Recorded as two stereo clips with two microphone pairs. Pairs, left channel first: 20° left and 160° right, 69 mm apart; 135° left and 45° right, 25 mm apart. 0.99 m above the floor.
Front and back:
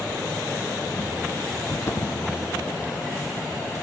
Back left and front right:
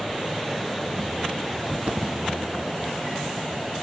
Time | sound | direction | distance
1.7 | footsteps | 30° right | 2.0 m